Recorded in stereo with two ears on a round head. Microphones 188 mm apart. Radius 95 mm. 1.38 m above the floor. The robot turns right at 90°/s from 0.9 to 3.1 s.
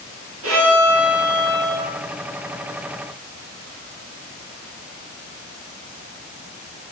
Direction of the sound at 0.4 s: 105° right.